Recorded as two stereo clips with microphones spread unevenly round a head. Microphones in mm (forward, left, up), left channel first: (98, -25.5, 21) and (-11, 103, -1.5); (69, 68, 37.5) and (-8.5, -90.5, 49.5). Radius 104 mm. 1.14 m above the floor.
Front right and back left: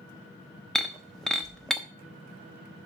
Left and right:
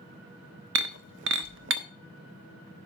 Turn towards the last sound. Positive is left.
turn(degrees=-135)